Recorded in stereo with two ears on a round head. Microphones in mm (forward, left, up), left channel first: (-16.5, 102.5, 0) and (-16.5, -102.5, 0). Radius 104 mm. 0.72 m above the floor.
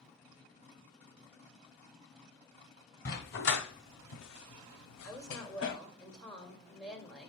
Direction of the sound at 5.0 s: 5° left (ahead or behind).